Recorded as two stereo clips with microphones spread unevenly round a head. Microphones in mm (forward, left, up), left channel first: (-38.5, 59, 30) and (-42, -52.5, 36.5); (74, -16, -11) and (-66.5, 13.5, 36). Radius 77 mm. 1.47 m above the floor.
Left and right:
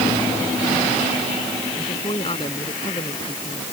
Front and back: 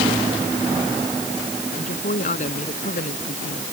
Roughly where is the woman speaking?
Ahead left.